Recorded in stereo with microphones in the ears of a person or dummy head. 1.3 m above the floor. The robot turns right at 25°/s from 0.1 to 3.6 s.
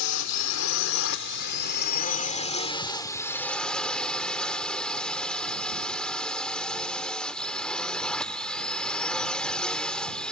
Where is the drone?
90° left; by 10.3 s 175° left.